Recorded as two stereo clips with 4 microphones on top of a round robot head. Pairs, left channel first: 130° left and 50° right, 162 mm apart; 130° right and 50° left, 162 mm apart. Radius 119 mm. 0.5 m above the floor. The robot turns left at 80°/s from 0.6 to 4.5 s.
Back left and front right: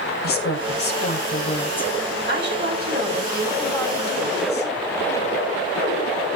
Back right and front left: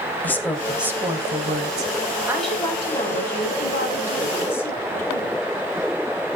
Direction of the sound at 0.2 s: 150° left.